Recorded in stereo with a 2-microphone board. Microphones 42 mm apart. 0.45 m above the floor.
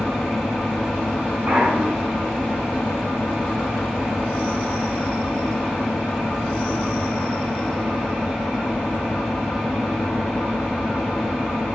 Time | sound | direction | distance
0.0 | an engine running | 15° left (ahead or behind) | 2 m
1.5 | a clunk | 50° right (ahead or behind) | 1.7 m